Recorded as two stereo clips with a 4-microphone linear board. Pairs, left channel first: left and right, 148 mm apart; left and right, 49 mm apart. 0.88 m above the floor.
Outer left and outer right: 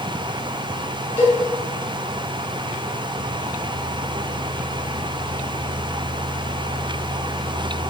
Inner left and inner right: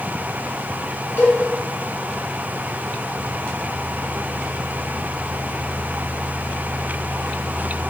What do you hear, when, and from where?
1.2 s a cowbell: 50° left (ahead or behind), 5.5 m